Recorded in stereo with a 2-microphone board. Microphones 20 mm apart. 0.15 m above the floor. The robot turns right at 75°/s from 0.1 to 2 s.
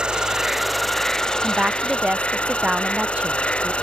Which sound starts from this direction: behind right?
A woman speaking, at 1.4 s.